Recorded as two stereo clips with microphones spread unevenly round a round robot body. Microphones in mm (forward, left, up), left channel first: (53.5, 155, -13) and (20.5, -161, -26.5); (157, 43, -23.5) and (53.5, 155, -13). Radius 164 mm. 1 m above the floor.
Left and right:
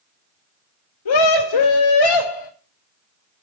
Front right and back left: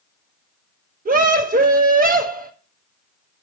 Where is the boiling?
No boiling in this recording.